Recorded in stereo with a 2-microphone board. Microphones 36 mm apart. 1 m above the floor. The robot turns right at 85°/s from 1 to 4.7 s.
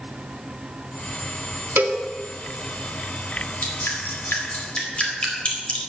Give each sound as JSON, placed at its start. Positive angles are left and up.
{"t": 1.8, "sound": "a cowbell", "side_deg": -60, "distance_m": 1.7}
{"t": 3.6, "sound": "dripping", "side_deg": 55, "distance_m": 4.0}